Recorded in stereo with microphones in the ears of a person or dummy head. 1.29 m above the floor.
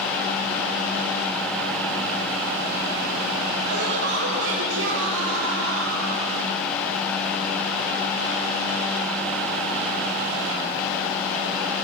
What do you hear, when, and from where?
3.6 s laughter: 60° right (ahead or behind), 3 m; by 6.2 s 75° right (ahead or behind), 4.5 m